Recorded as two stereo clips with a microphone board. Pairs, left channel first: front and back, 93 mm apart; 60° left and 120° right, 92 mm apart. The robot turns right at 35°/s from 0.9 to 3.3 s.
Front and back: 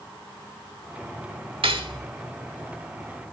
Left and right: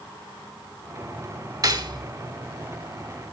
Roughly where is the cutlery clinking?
Behind.